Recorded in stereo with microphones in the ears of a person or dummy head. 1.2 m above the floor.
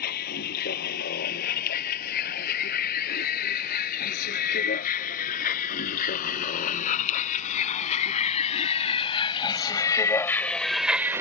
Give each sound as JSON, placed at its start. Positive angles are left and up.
{"t": 0.0, "sound": "a vehicle", "side_deg": 50}